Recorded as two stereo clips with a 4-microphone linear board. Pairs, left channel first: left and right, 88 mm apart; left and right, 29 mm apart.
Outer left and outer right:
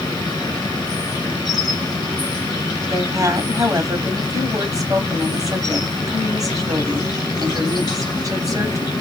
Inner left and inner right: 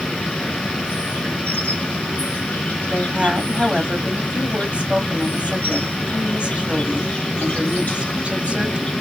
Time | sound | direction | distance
0.0 | an insect | 50° left (ahead or behind) | 1.8 m
2.9 | a woman speaking | 40° right (ahead or behind) | 1.2 m